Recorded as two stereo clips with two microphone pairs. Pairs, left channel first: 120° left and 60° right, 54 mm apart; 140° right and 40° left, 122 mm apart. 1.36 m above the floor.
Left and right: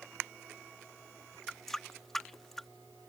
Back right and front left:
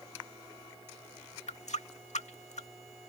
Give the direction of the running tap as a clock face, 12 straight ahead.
5 o'clock.